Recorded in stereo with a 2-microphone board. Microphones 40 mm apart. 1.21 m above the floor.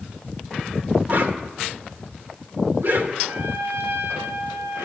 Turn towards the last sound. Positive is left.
turn(degrees=-70)  # may be behind; listen again after turning